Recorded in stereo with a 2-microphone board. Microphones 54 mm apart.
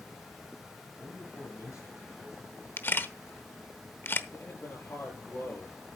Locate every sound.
0.9 s a man speaking: 65° left (ahead or behind), 3 m
2.8 s a camera shutter: 40° left (ahead or behind), 0.9 m
4.3 s a man speaking: 50° left (ahead or behind), 8 m